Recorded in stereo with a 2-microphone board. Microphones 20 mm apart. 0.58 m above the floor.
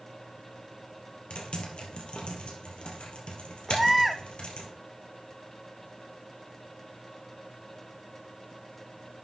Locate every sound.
1.3 s typing on a keyboard: 55° left (ahead or behind), 2.5 m
3.7 s a baby crying: 10° right (ahead or behind), 0.7 m